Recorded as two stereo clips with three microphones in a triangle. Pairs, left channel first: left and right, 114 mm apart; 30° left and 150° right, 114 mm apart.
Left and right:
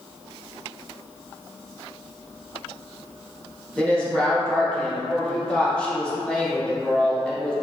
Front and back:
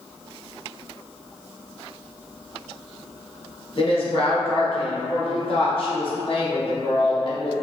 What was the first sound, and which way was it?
A woman speaking, 10° left.